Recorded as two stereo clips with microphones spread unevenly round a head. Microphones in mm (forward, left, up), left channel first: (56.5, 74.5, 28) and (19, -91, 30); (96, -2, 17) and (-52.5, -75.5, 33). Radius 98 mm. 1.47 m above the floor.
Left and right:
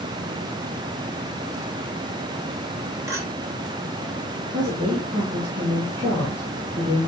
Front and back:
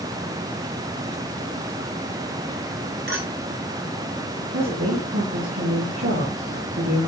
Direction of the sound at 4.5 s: 170° right.